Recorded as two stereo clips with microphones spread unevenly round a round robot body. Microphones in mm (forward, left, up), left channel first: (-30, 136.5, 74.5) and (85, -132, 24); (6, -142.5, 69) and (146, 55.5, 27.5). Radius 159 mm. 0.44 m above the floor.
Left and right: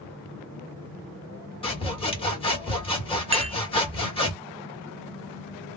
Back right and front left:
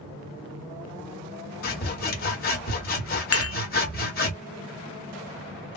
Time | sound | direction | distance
1.6 | sawing | 170° right | 1.8 m
3.3 | dishes clattering | 120° right | 0.6 m